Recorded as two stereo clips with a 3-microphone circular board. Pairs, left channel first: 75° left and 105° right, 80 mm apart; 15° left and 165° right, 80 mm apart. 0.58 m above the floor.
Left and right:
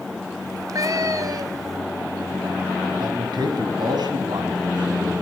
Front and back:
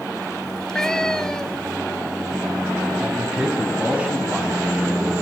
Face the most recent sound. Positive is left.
turn(degrees=-90)